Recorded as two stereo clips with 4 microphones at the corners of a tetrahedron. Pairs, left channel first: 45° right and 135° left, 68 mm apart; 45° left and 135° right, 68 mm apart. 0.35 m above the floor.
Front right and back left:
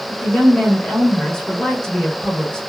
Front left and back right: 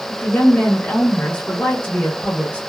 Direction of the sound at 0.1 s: 10° left.